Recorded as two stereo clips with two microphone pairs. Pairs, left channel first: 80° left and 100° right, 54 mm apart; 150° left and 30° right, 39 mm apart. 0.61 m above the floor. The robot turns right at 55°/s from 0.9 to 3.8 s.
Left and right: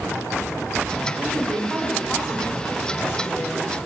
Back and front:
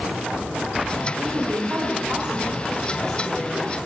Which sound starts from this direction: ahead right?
A woman speaking, at 1.2 s.